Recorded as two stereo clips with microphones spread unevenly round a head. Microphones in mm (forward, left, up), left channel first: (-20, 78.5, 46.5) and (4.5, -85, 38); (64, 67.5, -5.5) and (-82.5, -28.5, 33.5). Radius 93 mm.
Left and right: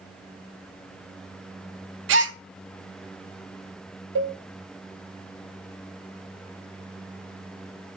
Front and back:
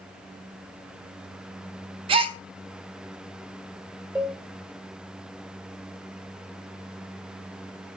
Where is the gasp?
95° right, 0.6 m.